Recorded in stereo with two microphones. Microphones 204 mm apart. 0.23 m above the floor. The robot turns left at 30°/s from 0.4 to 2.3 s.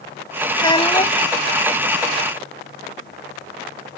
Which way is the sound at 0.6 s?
20° left (ahead or behind).